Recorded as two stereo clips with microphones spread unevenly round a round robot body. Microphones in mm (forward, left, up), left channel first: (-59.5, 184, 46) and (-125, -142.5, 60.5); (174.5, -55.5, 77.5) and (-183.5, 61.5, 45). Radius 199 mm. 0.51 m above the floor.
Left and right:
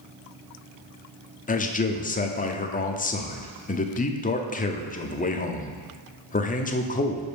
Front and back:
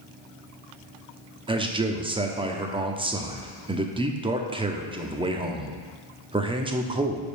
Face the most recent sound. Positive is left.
turn(degrees=110)